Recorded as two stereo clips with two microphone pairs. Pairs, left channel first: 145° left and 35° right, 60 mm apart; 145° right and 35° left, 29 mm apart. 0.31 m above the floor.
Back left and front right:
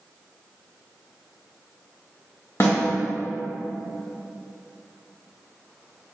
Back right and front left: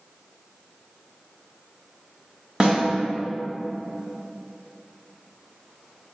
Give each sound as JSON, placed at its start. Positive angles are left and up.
{"t": 2.6, "sound": "a snare drum", "azimuth_deg": 105, "distance_m": 1.7}